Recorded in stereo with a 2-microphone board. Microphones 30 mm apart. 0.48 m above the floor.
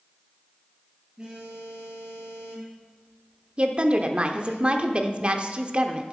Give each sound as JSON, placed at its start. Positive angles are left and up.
{"t": 1.2, "sound": "a phone buzzing", "side_deg": -20, "distance_m": 5.0}
{"t": 3.6, "sound": "a woman speaking", "side_deg": -35, "distance_m": 0.9}